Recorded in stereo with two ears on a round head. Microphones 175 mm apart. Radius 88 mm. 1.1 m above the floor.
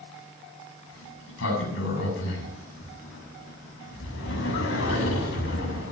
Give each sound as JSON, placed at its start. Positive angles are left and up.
{"t": 0.9, "sound": "a sliding door", "side_deg": 70, "distance_m": 7.5}